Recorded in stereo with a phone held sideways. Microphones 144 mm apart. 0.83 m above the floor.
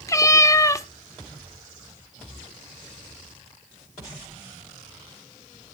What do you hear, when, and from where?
0.1 s a cat meowing: 20° left (ahead or behind), 0.6 m